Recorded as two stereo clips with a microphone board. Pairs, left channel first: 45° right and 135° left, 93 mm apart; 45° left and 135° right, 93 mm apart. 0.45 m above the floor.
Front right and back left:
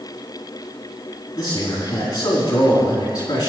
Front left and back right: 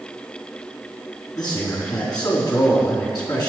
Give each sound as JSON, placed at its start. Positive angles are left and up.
{"t": 1.4, "sound": "a man speaking", "azimuth_deg": 0, "distance_m": 4.5}